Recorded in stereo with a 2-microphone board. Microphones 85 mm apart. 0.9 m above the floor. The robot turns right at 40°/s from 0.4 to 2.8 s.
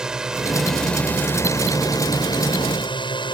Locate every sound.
0.0 s a drone: 10° right; by 3.3 s 85° left